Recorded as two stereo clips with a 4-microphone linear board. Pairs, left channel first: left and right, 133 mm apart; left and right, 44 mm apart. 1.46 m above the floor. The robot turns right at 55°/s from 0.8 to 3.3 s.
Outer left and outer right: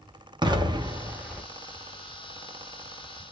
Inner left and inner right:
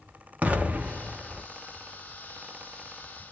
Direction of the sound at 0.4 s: 35° right.